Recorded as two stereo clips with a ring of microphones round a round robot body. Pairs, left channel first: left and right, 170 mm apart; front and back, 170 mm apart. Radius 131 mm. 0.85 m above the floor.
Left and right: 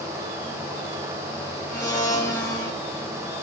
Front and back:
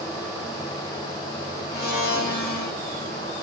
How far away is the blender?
About 1.7 m.